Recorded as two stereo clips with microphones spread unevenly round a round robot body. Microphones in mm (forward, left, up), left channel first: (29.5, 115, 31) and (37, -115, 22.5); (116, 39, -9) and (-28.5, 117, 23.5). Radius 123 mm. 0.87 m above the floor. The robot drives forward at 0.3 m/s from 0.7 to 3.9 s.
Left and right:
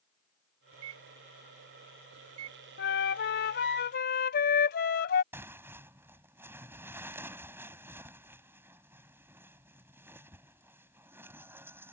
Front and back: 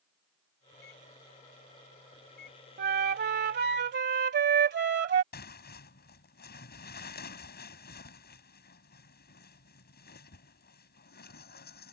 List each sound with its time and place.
0.7 s a microwave: 70° right; by 2.6 s 80° right
2.8 s a flute: 140° left; by 5.2 s 145° left
5.3 s tearing paper: 5° right